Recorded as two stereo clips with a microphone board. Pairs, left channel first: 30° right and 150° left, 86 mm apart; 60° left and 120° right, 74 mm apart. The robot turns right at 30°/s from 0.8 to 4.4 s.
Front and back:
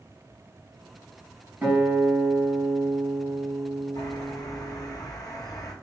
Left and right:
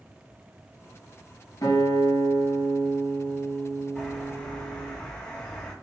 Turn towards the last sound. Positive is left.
turn(degrees=-15)